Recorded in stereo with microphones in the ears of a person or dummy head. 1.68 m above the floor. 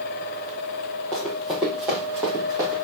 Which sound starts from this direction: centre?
Running footsteps, at 1.1 s.